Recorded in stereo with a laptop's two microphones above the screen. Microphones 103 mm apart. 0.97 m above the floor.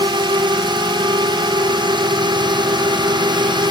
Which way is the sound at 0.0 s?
45° right (ahead or behind).